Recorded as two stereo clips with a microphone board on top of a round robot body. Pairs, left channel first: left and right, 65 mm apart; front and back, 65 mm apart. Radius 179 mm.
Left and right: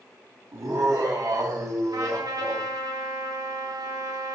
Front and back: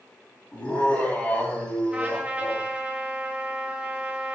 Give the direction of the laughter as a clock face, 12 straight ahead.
2 o'clock.